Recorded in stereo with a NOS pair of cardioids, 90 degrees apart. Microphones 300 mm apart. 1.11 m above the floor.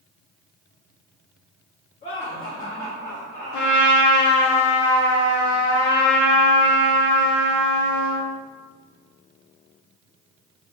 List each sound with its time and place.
2.0 s laughter: 25° left, 1.8 m; by 3.9 s 15° right, 1.3 m
3.5 s a trumpet: 70° left, 1.1 m